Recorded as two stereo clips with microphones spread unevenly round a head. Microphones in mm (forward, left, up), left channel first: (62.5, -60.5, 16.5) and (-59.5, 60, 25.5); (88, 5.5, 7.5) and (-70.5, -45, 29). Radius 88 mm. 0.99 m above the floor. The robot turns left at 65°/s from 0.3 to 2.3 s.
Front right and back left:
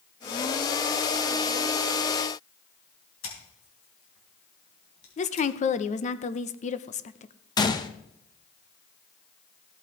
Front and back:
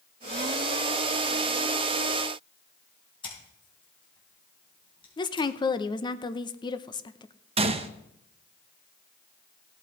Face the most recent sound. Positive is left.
turn(degrees=-110)